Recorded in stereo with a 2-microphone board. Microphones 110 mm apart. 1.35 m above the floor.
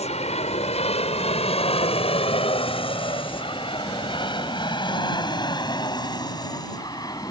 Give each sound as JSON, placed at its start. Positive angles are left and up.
{"t": 0.0, "sound": "an aircraft", "side_deg": 75}